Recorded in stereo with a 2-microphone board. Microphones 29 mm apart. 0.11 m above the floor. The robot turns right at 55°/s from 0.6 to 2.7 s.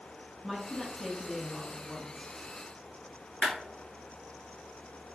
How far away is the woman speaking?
About 1.1 m.